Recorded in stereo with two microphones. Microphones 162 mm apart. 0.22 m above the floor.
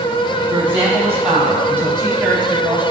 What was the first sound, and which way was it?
A woman speaking, 10° right (ahead or behind).